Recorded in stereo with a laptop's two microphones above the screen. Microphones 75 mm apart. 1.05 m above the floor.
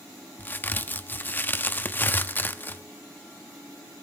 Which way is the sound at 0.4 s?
25° left (ahead or behind).